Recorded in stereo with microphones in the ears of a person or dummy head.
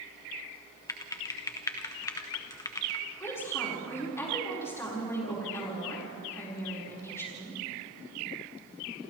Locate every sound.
0.9 s typing on a keyboard: 20° left (ahead or behind), 1.1 m
3.2 s a woman speaking: 20° left (ahead or behind), 5 m